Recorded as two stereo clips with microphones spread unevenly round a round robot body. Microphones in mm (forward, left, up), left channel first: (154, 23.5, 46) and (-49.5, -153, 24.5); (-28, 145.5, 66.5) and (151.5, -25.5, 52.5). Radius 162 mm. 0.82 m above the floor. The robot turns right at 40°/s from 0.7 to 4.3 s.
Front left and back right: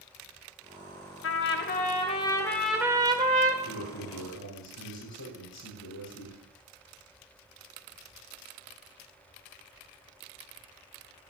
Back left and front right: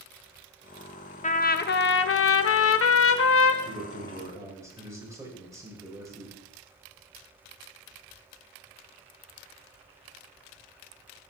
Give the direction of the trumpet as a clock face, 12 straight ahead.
9 o'clock.